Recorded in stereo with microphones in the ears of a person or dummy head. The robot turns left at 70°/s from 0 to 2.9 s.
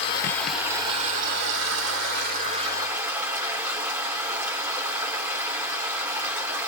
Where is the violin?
I don't hear a violin.